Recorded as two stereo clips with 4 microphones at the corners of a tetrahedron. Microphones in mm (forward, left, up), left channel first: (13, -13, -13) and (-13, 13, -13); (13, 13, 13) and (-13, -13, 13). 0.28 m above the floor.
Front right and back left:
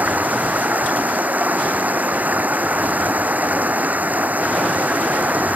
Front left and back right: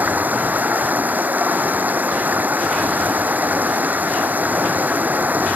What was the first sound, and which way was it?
Running water, straight behind.